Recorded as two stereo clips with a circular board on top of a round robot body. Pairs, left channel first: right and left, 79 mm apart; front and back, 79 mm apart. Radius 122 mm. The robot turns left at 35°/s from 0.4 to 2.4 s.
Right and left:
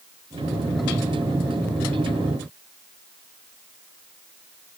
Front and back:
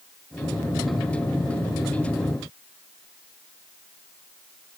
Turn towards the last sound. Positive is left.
No sound to turn to.